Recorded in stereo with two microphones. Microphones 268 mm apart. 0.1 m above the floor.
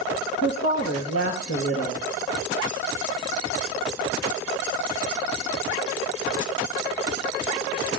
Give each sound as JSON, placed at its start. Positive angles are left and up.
{"t": 0.4, "sound": "a woman speaking", "side_deg": 60, "distance_m": 2.5}